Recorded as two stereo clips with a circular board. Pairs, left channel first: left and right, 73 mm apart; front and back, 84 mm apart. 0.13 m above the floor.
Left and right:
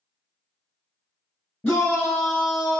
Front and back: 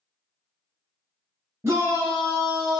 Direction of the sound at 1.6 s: 155° left.